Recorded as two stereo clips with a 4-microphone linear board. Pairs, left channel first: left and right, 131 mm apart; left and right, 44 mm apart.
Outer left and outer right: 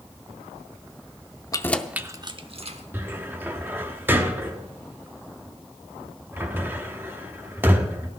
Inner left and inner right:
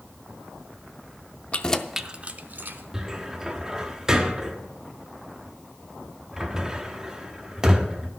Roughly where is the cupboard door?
Centre.